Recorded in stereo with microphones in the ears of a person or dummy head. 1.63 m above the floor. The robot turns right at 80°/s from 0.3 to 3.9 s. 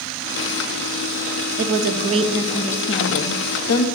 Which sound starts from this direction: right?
A woman speaking, at 1.6 s.